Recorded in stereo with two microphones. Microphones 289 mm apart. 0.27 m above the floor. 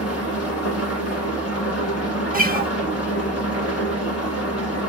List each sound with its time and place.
0.0 s an engine running: 55° left (ahead or behind), 0.9 m
2.3 s a guitar: 30° right (ahead or behind), 0.7 m